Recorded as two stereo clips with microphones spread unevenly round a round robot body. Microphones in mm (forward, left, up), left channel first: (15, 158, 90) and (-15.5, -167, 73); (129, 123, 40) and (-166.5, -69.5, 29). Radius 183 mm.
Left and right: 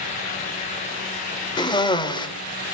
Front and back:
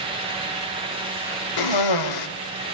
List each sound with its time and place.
1.6 s a cough: 5° left, 3 m